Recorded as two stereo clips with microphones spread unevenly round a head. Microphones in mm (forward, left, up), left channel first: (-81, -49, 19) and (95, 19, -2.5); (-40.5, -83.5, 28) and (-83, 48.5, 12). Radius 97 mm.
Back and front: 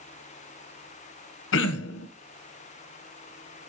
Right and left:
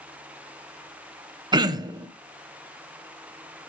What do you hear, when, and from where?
1.5 s throat clearing: 170° left, 1.2 m